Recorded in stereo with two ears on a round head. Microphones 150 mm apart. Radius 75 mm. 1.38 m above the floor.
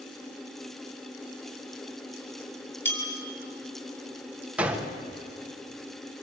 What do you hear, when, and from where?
2.9 s a bell: 15° left (ahead or behind), 6 m
4.6 s a gunshot: 5° right (ahead or behind), 1.8 m